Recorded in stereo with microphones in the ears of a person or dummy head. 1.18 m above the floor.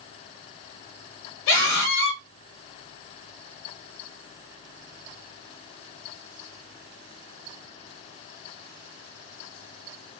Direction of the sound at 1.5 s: 65° left (ahead or behind).